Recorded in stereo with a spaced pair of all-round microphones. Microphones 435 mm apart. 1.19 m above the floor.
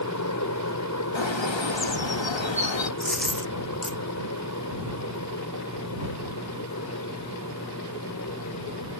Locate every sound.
0.0 s a fan: 40° left (ahead or behind)
1.1 s a bird: 85° left
3.0 s a dropped coin: centre (ahead or behind)